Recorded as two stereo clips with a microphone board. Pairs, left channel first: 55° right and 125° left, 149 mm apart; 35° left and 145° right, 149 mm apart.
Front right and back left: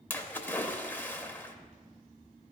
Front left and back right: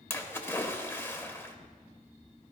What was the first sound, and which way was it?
A splash, 5° right.